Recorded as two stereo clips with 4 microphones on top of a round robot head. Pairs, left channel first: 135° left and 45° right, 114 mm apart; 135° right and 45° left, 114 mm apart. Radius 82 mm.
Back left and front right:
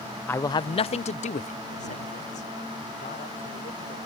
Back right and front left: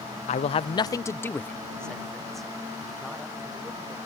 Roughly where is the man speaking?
Behind right.